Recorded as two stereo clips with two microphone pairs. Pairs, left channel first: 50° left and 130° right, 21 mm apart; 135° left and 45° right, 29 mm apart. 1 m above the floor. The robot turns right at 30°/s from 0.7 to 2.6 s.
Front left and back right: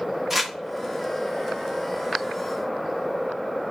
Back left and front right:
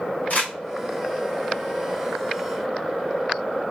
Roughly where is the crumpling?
Behind.